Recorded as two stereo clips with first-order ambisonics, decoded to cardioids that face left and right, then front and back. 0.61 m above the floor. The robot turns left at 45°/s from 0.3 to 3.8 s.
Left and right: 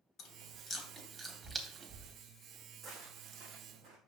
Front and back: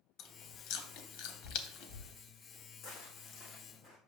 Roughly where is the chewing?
Ahead left.